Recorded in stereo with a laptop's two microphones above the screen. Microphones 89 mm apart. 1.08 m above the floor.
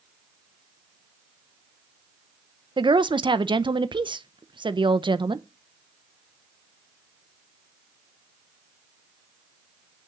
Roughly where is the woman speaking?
Right.